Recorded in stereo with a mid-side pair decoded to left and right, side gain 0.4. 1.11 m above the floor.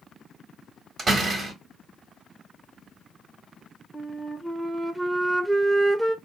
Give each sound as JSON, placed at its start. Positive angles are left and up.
{"t": 1.0, "sound": "a door slam", "azimuth_deg": -55, "distance_m": 1.5}
{"t": 3.9, "sound": "a flute", "azimuth_deg": -20, "distance_m": 0.7}